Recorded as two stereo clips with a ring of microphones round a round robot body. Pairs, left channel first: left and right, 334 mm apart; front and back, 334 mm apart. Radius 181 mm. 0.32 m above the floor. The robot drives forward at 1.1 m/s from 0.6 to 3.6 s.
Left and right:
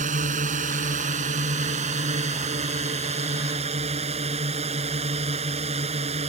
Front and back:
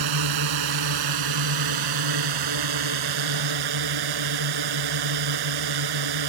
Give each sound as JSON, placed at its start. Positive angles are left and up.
{"t": 0.0, "sound": "a drone", "azimuth_deg": -160}